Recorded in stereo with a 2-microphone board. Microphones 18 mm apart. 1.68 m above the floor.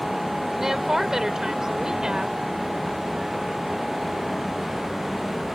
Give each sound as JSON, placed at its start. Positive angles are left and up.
{"t": 0.6, "sound": "a woman speaking", "side_deg": -20}